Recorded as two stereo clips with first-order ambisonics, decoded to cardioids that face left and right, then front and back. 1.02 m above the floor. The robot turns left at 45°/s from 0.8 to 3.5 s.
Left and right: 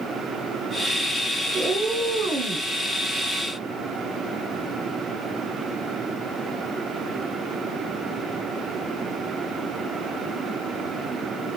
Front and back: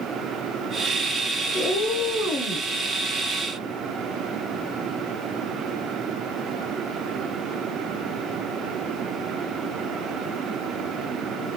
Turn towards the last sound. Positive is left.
turn(degrees=-105)